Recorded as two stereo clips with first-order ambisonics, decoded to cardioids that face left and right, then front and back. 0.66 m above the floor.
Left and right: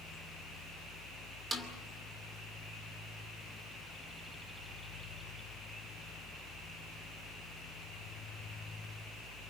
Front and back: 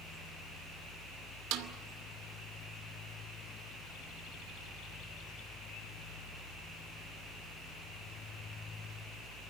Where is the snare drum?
165° right, 2.5 m.